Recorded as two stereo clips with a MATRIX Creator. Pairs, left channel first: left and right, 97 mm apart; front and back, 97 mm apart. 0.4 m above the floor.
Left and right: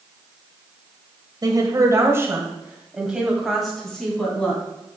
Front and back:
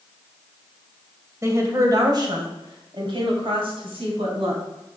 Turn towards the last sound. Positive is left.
turn(degrees=170)